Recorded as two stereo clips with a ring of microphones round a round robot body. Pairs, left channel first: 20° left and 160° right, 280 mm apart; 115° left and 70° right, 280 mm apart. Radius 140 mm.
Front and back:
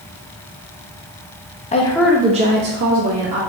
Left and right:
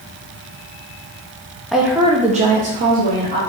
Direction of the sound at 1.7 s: 25° left.